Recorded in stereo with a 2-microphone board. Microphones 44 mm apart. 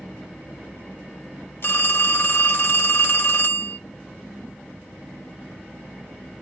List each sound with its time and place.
1.6 s a phone ringing: 55° left (ahead or behind), 1.0 m